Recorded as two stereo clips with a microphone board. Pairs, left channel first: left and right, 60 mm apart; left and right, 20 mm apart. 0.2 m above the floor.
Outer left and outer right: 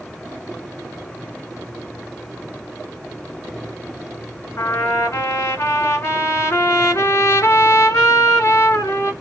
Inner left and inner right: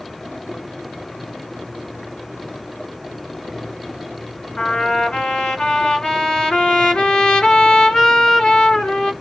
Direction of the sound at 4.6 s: 50° left (ahead or behind).